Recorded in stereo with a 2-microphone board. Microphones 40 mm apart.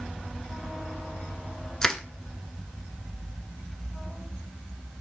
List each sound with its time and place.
1.8 s crushing: 15° left (ahead or behind), 0.5 m